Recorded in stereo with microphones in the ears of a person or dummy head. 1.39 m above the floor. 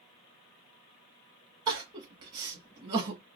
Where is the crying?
20° right (ahead or behind), 0.9 m.